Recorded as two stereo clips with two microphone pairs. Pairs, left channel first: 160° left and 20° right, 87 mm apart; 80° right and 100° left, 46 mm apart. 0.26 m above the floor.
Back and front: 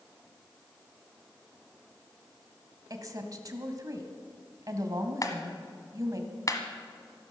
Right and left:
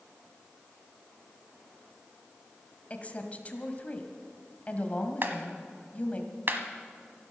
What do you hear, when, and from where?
2.9 s a woman speaking: 40° right, 1.6 m
5.2 s a clap: 120° left, 1.3 m